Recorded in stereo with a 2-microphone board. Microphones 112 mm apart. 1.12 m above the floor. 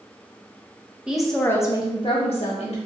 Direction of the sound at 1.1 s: 10° right (ahead or behind).